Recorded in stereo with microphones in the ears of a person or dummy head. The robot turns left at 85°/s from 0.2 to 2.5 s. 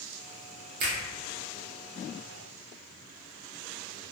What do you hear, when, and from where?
0.8 s a finger snap: 45° right (ahead or behind), 0.8 m; by 1.0 s 50° right (ahead or behind), 0.8 m